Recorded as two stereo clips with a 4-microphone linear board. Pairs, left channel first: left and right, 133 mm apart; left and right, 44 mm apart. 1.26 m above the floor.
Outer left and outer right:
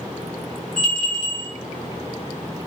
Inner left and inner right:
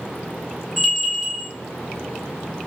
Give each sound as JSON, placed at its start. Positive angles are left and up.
{"t": 0.8, "sound": "a bell", "side_deg": 5, "distance_m": 0.8}